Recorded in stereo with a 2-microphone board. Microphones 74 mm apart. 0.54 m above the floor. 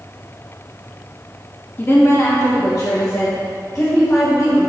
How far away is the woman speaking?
About 0.6 m.